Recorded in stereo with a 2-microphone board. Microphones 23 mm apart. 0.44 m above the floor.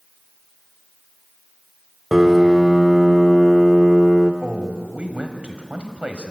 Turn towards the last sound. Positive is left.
turn(degrees=-65)  # may be behind; listen again after turning